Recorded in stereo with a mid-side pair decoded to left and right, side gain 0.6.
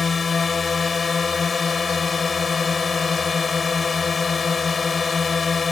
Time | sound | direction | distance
0.0 | a drone | 25° left | ?